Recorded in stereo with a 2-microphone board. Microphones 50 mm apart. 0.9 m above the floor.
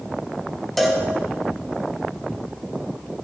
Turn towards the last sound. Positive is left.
turn(degrees=0)  # may be behind; listen again after turning